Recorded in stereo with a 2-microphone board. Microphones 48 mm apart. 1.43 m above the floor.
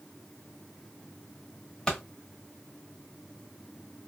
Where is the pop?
15° left (ahead or behind), 1.3 m.